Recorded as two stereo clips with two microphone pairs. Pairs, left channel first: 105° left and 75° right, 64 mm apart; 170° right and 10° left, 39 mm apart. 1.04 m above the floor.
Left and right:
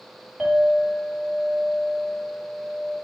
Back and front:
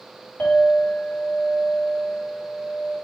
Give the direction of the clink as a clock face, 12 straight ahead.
5 o'clock.